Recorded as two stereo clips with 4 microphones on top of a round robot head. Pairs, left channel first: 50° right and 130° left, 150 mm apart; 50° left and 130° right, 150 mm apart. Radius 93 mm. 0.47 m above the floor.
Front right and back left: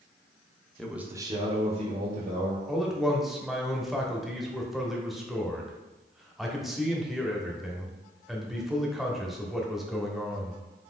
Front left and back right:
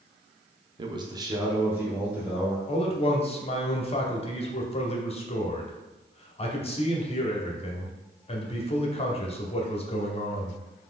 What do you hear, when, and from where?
0.8 s a man speaking: 135° right, 0.7 m; by 2.6 s 145° left, 1.5 m
2.7 s a man speaking: 45° left, 1.1 m